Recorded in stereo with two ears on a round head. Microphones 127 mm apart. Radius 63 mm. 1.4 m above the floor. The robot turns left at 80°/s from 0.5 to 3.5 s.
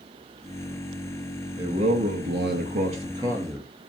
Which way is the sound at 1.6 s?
25° right.